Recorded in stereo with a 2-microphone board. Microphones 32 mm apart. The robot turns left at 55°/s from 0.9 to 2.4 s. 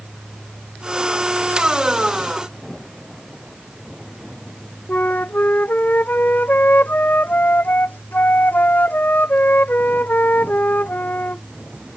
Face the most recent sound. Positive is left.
turn(degrees=75)  # may be behind; listen again after turning